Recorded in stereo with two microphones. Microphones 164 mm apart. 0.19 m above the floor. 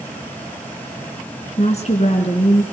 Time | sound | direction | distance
1.6 | a woman speaking | 45° left (ahead or behind) | 2 m